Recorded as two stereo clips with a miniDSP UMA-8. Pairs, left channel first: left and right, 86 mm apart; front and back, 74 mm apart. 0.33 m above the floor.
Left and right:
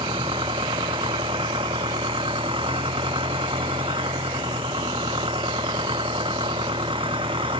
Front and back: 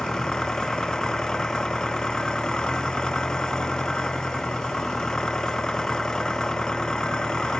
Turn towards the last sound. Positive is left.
turn(degrees=-80)